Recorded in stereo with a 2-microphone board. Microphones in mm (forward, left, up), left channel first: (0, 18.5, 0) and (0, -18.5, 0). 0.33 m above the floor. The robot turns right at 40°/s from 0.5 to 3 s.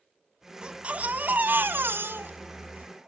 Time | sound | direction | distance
0.6 | a baby crying | 155° right | 1.9 m